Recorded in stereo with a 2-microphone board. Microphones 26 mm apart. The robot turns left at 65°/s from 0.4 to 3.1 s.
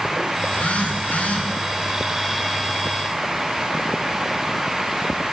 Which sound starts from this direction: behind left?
A phone buzzing, at 0.4 s.